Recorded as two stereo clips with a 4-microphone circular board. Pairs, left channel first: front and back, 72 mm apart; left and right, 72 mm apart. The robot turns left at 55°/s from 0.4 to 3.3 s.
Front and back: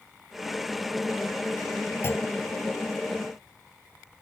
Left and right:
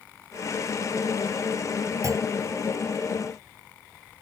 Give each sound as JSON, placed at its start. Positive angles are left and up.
{"t": 2.0, "sound": "a clunk", "azimuth_deg": -55}